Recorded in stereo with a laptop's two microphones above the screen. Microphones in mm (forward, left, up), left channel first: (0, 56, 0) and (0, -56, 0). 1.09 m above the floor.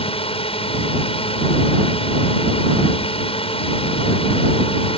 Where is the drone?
60° left (ahead or behind).